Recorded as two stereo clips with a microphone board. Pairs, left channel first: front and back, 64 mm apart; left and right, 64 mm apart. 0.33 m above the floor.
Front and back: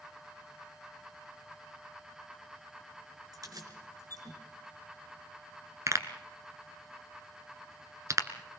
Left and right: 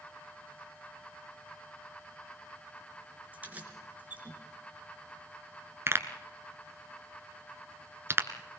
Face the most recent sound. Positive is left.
turn(degrees=-140)